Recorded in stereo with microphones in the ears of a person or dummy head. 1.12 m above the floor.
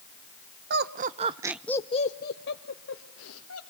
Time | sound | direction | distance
0.7 | laughter | 60° right (ahead or behind) | 1.0 m